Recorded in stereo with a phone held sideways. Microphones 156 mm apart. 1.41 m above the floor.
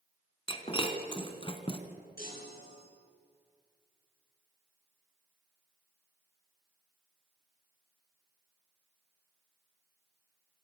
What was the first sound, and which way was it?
Breaking glass, 30° left (ahead or behind).